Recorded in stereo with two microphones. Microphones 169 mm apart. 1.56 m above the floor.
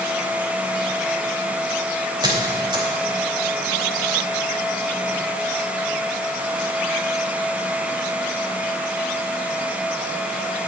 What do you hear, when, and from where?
2.2 s a squeak: 25° right (ahead or behind), 3 m